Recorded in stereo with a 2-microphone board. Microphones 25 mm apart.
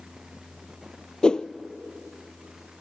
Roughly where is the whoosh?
Left.